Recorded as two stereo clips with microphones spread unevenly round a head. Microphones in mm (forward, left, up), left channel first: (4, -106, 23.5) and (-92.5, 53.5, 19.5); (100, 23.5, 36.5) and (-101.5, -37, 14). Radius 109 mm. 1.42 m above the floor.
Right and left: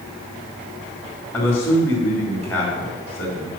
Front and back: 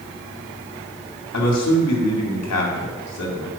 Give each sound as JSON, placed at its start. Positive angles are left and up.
{"t": 1.3, "sound": "a man speaking", "azimuth_deg": 25, "distance_m": 2.5}